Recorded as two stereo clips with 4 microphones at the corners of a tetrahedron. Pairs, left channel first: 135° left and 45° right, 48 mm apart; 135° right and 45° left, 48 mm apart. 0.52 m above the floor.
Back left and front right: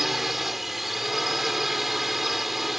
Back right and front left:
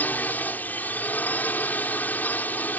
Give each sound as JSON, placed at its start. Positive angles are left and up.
{"t": 0.0, "sound": "a drone", "azimuth_deg": -130}